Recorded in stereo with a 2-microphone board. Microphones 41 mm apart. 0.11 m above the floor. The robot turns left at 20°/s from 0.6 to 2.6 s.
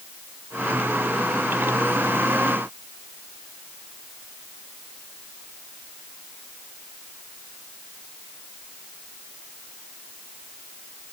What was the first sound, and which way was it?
Only background noise.